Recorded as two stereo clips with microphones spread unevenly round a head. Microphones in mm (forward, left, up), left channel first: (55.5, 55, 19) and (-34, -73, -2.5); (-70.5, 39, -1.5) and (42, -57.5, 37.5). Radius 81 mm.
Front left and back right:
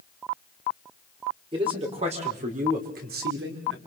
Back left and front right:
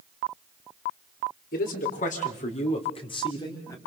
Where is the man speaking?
170° left, 4.5 m; by 3.8 s 150° right, 4 m.